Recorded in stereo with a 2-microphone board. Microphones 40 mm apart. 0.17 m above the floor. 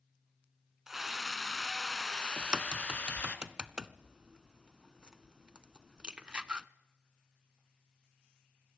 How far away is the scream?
About 1.7 m.